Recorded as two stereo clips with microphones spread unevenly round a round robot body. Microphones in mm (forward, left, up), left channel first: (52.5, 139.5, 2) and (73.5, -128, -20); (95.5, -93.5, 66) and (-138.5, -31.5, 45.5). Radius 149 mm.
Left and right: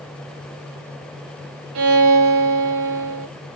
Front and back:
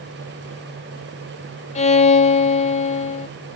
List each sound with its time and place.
1.8 s a violin: 80° right, 0.6 m